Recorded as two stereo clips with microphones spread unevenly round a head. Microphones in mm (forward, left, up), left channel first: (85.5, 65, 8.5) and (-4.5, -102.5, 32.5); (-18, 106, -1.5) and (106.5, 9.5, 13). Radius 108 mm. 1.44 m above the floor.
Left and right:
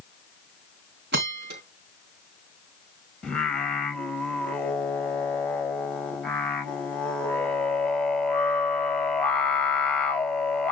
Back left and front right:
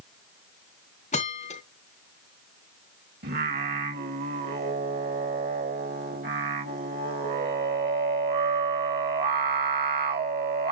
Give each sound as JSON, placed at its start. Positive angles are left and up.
{"t": 1.1, "sound": "a bell", "azimuth_deg": -160, "distance_m": 3.0}
{"t": 3.2, "sound": "singing", "azimuth_deg": -20, "distance_m": 2.0}